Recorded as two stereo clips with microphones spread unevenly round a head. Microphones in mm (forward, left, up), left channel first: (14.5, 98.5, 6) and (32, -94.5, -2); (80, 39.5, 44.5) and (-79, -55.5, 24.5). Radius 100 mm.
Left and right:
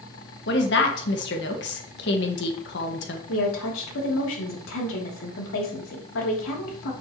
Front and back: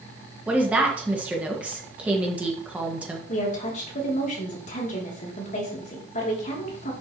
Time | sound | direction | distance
0.5 | a woman speaking | 125° left | 1.7 m
3.3 | a woman speaking | 80° left | 3 m